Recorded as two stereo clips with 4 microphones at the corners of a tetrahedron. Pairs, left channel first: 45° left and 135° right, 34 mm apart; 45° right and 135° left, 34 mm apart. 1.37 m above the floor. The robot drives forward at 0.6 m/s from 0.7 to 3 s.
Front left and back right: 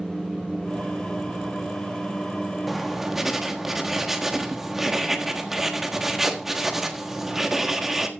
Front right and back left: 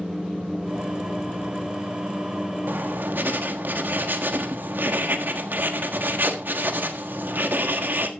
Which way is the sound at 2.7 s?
140° left.